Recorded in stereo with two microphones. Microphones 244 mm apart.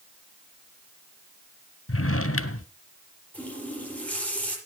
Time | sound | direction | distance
1.9 | a drawer | 65° left (ahead or behind) | 0.8 m
3.3 | a running tap | 5° left (ahead or behind) | 6.5 m